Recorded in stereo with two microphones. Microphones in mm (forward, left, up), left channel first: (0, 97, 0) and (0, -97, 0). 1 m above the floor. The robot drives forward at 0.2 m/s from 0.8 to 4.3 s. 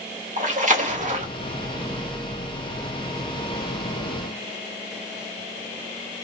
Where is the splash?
40° right (ahead or behind), 1.2 m.